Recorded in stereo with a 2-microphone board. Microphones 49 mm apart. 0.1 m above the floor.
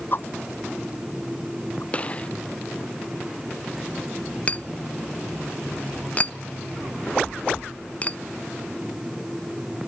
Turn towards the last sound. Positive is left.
turn(degrees=30)  # may be behind; listen again after turning